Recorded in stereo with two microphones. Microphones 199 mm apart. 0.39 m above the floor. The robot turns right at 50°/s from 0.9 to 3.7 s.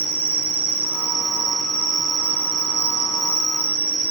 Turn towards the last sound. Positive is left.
turn(degrees=105)